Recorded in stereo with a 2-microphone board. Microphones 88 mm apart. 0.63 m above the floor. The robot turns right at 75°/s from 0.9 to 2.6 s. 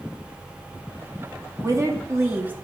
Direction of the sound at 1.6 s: 105° right.